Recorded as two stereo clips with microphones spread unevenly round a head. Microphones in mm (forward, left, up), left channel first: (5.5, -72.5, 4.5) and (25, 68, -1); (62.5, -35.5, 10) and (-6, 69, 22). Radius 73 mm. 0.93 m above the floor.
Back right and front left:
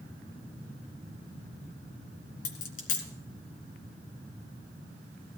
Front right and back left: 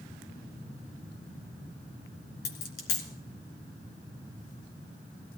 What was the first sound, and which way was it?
A dropped coin, 80° right.